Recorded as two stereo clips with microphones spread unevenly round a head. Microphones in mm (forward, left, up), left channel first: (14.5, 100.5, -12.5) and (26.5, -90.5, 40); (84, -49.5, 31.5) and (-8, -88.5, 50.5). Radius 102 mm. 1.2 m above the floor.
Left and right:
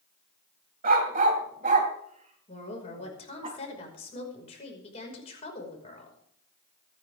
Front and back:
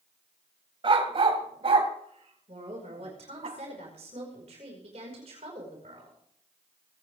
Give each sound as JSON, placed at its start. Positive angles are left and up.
{"t": 0.8, "sound": "a dog barking", "azimuth_deg": -130, "distance_m": 3.0}
{"t": 2.5, "sound": "a woman speaking", "azimuth_deg": 155, "distance_m": 5.5}